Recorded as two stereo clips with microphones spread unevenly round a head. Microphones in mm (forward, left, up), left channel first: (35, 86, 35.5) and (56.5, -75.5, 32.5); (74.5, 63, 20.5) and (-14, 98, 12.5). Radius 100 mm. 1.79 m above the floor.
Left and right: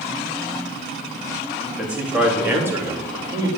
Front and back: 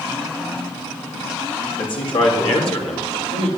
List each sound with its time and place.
1.8 s a man speaking: 5° left, 3 m; by 3.5 s 15° right, 3 m